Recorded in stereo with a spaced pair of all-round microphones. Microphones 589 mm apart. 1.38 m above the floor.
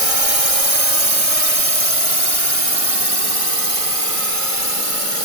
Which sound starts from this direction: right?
A drone, at 0.0 s.